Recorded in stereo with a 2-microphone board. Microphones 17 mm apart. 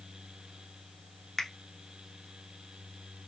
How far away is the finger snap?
About 0.9 m.